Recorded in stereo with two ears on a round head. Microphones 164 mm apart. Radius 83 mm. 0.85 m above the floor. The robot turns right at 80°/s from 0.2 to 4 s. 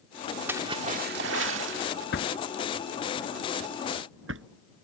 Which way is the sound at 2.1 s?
65° left (ahead or behind).